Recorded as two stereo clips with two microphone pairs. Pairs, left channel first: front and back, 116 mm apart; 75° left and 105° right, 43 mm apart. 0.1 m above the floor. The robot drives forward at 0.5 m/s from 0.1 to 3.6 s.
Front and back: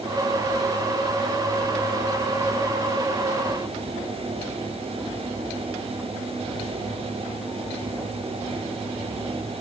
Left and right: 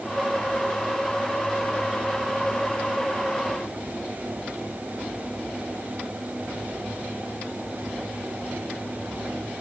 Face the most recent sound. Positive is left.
No sound to turn to.